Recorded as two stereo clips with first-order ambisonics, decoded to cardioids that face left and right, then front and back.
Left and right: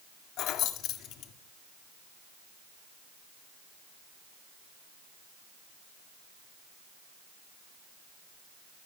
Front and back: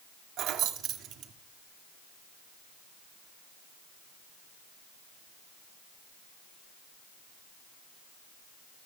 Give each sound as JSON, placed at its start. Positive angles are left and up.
{"t": 0.4, "sound": "keys jangling", "azimuth_deg": 135, "distance_m": 1.9}